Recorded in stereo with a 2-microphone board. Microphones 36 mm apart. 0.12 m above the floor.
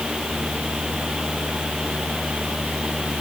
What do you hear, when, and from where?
Only background noise.